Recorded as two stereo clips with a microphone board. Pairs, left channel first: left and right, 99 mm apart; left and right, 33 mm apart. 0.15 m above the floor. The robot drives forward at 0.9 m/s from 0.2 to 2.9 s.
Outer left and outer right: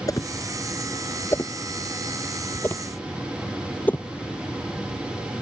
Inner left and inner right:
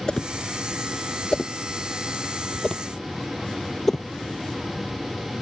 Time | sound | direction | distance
0.1 | a whoosh | 35° left (ahead or behind) | ?